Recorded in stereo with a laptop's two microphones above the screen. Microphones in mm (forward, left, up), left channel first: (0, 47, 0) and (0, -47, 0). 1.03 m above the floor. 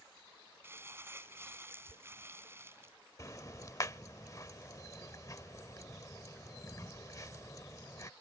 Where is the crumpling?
25° right (ahead or behind).